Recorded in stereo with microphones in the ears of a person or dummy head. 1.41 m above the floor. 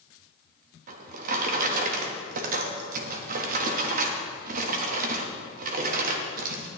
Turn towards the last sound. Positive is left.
turn(degrees=-55)  # may be behind; listen again after turning